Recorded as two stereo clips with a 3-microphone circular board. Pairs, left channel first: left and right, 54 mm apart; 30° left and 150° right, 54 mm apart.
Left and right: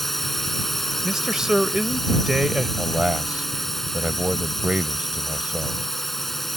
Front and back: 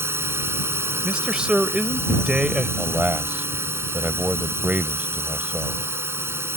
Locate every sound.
0.0 s a drone: 175° left
1.0 s a man speaking: 140° right
2.8 s a man speaking: 135° right